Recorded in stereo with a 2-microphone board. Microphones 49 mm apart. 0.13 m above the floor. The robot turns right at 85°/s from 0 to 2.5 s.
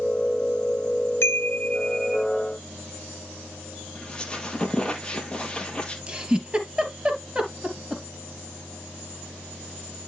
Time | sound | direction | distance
1.2 | a chime | 100° left | 1.0 m
4.0 | a squeak | 15° left (ahead or behind) | 2.0 m
6.1 | a giggle | 20° right (ahead or behind) | 2.5 m